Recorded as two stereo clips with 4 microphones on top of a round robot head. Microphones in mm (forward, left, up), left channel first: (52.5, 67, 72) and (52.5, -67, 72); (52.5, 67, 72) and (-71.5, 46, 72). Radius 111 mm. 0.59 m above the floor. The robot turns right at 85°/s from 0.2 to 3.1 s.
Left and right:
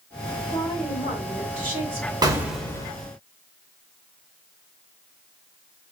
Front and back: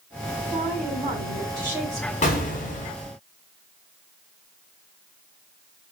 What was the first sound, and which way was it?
A woman speaking, 155° left.